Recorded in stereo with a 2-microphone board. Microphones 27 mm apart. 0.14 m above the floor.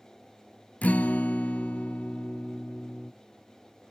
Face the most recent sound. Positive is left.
turn(degrees=65)  # may be behind; listen again after turning